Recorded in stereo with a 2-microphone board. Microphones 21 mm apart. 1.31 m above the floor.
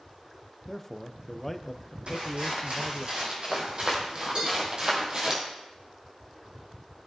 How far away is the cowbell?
About 3.5 m.